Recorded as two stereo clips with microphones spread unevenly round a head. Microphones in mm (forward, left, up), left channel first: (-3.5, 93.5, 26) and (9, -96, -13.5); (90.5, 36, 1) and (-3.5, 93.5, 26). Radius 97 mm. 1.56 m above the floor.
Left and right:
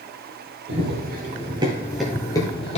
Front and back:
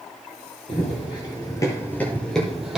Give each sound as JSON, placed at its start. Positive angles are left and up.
{"t": 0.7, "sound": "running footsteps", "azimuth_deg": -80, "distance_m": 2.0}